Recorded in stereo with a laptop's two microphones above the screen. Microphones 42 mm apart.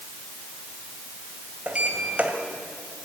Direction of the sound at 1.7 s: 30° right (ahead or behind).